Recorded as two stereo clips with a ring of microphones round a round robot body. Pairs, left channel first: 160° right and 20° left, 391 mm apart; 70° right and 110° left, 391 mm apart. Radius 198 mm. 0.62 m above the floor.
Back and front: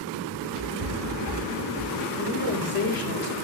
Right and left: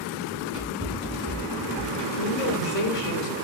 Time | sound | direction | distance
0.3 | running footsteps | 50° left | 4 m
2.2 | a woman speaking | 130° right | 1.6 m